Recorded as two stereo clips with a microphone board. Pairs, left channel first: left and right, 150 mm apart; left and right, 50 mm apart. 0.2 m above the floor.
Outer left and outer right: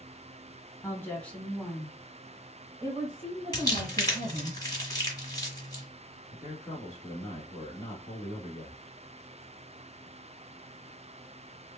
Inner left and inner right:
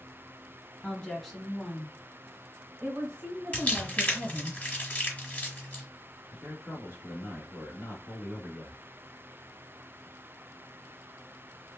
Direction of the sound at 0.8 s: 20° left (ahead or behind).